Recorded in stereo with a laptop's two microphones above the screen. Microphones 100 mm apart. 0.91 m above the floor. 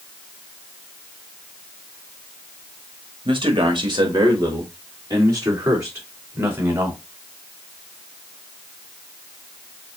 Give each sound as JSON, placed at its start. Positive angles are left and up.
{"t": 3.2, "sound": "a man speaking", "side_deg": -55, "distance_m": 1.6}